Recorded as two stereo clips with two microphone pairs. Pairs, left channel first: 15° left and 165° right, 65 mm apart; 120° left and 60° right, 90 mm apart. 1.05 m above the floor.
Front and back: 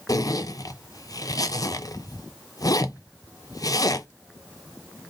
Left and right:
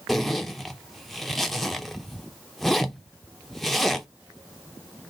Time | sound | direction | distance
0.1 | a zipper | 30° left | 0.5 m